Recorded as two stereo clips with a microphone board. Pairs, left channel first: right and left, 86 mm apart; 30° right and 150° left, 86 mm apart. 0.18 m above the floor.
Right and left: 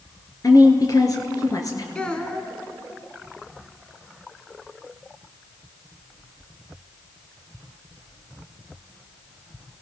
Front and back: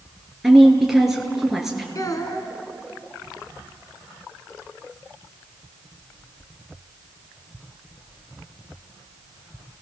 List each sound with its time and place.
0.4 s a woman speaking: 125° right, 3 m
1.9 s a child speaking: 15° right, 1.6 m